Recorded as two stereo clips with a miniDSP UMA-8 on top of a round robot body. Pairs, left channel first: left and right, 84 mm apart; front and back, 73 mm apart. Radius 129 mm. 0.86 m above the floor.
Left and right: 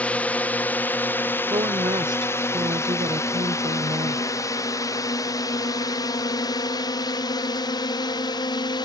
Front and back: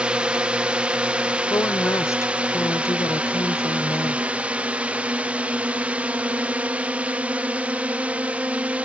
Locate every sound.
0.0 s a drone: 135° left; by 8.9 s 110° left
1.5 s a woman speaking: 50° right